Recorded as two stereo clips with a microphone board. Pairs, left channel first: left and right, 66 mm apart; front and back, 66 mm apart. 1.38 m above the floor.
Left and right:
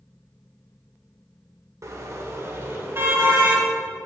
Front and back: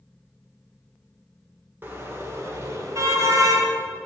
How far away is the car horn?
About 2 m.